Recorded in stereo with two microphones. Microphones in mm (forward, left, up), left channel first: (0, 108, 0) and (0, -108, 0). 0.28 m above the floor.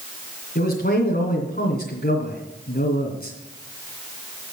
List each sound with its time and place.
0.6 s a man speaking: 45° left (ahead or behind), 2.5 m